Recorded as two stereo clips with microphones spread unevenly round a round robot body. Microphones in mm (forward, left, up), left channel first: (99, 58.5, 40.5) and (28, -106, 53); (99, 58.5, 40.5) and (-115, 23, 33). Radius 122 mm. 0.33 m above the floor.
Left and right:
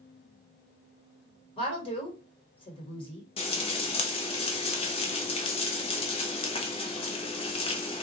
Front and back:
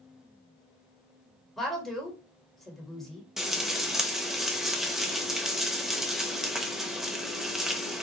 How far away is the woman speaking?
About 1.4 m.